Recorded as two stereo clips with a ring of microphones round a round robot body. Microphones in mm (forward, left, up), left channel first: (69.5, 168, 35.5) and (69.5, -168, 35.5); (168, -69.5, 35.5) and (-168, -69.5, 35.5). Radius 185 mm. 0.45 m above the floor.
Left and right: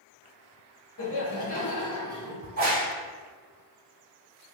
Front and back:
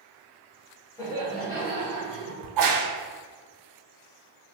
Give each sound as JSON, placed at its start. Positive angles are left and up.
{"t": 1.0, "sound": "laughter", "azimuth_deg": 80, "distance_m": 1.2}
{"t": 2.4, "sound": "a crack", "azimuth_deg": -155, "distance_m": 0.9}